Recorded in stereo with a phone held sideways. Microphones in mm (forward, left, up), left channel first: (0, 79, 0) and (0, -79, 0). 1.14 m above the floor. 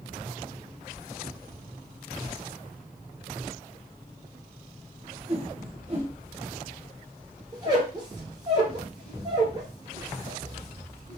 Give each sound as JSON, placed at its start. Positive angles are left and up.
{"t": 5.3, "sound": "a whoosh", "side_deg": -35, "distance_m": 1.6}
{"t": 7.5, "sound": "a squeak", "side_deg": -25, "distance_m": 1.6}